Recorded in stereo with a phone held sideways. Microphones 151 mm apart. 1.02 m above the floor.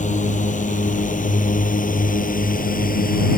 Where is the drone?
55° left (ahead or behind); by 3.4 s 75° left (ahead or behind).